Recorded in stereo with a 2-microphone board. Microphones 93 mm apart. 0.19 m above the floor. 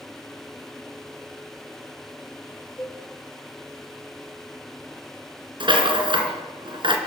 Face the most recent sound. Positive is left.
turn(degrees=-55)  # may be behind; listen again after turning